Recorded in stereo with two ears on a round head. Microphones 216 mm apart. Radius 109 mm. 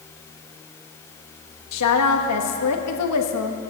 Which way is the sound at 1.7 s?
75° left (ahead or behind).